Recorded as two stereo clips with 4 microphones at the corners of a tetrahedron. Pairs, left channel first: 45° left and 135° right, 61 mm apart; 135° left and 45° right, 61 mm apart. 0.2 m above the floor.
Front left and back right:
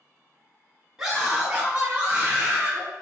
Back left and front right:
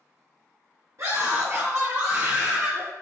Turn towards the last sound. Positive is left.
turn(degrees=-95)